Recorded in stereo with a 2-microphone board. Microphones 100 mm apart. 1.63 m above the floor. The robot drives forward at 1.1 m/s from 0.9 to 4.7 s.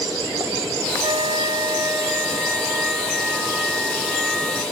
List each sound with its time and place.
1.0 s a flute: 45° right (ahead or behind); by 4.6 s 5° right (ahead or behind)